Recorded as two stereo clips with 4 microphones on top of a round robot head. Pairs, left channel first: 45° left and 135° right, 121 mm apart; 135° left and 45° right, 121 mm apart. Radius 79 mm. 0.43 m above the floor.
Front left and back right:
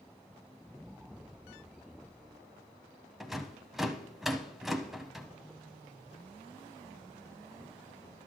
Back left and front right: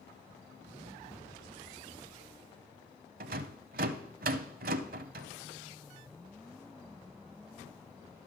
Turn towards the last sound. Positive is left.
turn(degrees=-45)